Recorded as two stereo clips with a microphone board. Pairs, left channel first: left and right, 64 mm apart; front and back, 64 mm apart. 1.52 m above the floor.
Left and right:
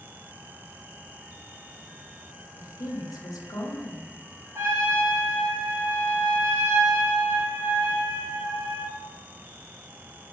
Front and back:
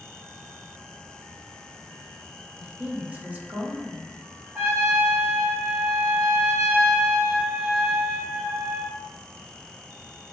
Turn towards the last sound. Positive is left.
turn(degrees=-125)